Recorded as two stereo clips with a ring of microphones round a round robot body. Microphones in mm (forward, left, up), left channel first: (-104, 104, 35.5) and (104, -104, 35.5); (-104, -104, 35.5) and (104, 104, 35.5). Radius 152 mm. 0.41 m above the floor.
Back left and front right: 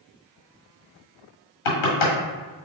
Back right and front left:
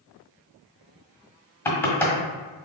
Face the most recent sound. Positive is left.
turn(degrees=140)